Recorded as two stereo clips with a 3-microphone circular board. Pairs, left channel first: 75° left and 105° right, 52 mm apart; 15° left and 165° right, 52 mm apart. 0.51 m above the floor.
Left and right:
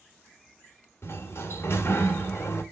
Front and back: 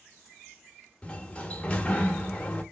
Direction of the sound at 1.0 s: 80° left.